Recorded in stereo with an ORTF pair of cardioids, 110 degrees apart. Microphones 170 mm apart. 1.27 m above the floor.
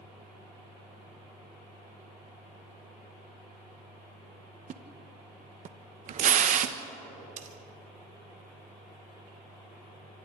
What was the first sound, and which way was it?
A splash, 50° right.